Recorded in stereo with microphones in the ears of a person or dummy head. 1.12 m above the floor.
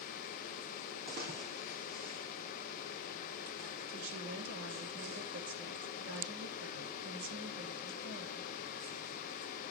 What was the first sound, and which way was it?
A splash, 50° right (ahead or behind).